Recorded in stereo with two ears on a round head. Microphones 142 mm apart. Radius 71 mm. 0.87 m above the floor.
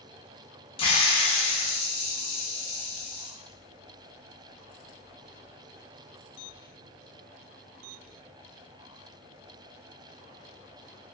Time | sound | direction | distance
0.8 | a hiss | 35° left (ahead or behind) | 0.7 m